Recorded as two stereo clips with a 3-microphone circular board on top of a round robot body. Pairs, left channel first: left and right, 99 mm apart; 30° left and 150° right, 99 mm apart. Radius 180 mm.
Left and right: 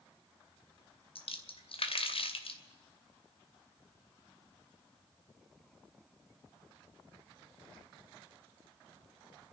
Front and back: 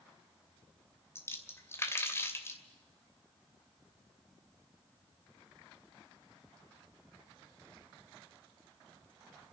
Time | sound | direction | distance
1.1 | a splash | 90° left | 2.5 m